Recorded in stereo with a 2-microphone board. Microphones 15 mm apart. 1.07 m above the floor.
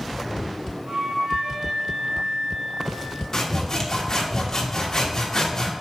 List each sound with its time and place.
0.9 s a flute: 65° right (ahead or behind), 3 m
3.3 s sawing: 30° left (ahead or behind), 1.4 m